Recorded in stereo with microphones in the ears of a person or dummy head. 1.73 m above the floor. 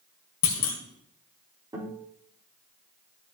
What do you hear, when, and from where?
0.4 s a clunk: 45° left (ahead or behind), 2 m
1.7 s a guitar: 20° right (ahead or behind), 4 m